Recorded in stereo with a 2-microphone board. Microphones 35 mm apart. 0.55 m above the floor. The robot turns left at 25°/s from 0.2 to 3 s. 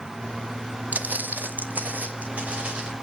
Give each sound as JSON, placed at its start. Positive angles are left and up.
{"t": 0.9, "sound": "footsteps", "side_deg": -45, "distance_m": 0.7}